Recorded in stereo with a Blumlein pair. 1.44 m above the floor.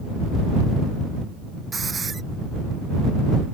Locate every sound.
1.7 s a hiss: 15° right